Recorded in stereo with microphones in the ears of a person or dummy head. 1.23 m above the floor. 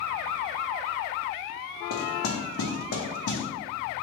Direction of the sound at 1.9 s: 85° left.